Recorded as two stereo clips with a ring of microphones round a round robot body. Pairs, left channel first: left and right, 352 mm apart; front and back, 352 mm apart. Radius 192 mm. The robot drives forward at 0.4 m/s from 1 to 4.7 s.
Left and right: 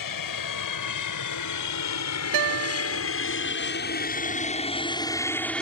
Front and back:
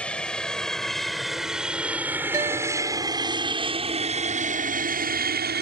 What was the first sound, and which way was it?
An aircraft, 85° left.